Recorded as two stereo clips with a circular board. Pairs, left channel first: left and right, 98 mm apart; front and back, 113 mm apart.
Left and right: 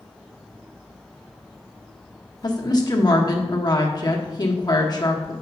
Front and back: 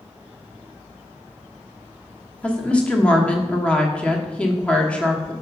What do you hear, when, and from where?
2.4 s a woman speaking: 75° left, 1.2 m